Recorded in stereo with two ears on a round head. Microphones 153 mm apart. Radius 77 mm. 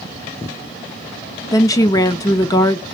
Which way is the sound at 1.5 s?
20° left (ahead or behind).